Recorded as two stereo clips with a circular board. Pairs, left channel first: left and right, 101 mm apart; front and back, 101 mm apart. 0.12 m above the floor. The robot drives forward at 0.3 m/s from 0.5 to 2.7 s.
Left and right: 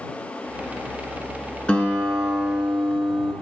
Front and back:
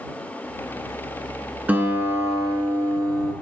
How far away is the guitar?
About 0.6 m.